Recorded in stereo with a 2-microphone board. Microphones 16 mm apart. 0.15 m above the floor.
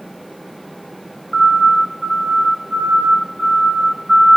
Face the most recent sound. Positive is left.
turn(degrees=-5)  # may be behind; listen again after turning